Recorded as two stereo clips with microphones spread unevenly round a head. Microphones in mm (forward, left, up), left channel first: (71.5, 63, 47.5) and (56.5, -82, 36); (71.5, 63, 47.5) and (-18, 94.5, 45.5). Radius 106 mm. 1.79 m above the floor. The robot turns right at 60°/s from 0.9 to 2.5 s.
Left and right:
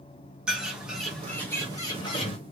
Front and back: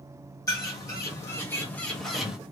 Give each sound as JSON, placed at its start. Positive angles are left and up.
{"t": 0.5, "sound": "a bird", "azimuth_deg": -10, "distance_m": 1.3}